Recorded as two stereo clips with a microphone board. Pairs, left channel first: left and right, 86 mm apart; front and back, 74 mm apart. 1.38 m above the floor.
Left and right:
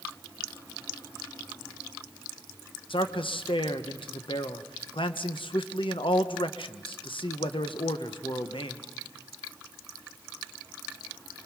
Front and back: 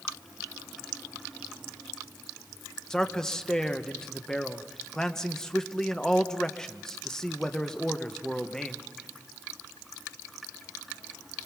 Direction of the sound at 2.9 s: 80° left.